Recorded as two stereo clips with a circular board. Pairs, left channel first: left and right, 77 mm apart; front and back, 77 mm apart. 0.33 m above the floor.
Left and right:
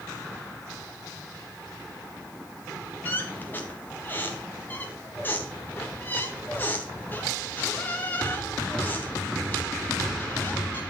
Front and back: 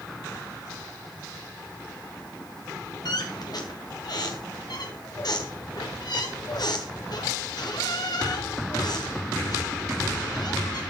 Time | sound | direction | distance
3.0 | a squeak | 25° left | 3 m